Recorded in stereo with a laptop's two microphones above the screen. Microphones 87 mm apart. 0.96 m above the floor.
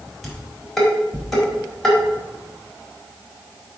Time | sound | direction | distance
0.2 | dishes clattering | 5° left (ahead or behind) | 3.5 m